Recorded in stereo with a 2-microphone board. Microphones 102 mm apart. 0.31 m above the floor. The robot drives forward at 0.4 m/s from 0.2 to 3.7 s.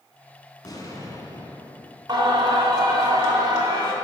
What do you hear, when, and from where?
0.6 s an explosion: 40° left (ahead or behind), 1.3 m; by 2.0 s 30° left (ahead or behind), 1.7 m
2.1 s singing: 40° right (ahead or behind), 2.0 m; by 3.9 s 35° right (ahead or behind), 2.5 m